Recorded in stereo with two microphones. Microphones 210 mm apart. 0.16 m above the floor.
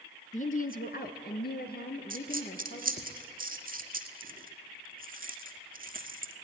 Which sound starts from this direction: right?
A dropped coin, at 2.1 s.